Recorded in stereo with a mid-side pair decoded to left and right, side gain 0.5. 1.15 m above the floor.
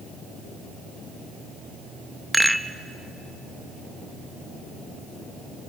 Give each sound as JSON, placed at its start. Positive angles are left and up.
{"t": 2.3, "sound": "a rattle", "azimuth_deg": -5, "distance_m": 0.7}